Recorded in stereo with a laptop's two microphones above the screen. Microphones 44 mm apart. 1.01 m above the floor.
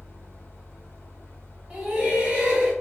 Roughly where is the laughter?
Right.